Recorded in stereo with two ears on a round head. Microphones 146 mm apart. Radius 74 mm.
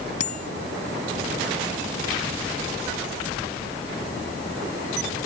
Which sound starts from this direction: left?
A bicycle bell, at 0.2 s.